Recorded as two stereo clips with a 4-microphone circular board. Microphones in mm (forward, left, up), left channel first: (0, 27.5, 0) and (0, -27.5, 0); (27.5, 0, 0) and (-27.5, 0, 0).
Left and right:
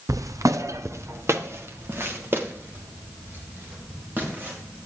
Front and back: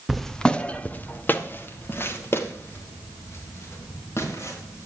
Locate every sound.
0.1 s footsteps: 95° right, 1.0 m; by 4.8 s 35° right, 6.5 m